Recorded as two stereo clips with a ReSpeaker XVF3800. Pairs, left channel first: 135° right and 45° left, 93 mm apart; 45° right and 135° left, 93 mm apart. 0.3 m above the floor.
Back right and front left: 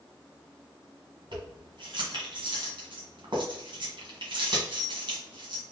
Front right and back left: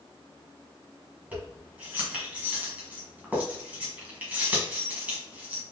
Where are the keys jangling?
65° left, 1.6 m.